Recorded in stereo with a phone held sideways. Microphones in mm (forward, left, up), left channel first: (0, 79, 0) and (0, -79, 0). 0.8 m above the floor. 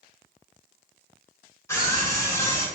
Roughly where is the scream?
Centre.